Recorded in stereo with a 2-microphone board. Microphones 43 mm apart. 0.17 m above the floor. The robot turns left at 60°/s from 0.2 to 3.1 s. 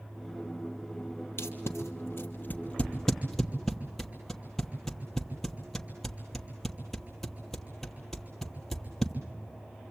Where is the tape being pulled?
65° left (ahead or behind), 2.5 m; by 9.1 s 5° left (ahead or behind), 2.5 m.